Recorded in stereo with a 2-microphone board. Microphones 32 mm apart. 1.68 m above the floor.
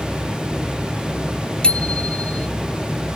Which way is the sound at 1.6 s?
35° left (ahead or behind).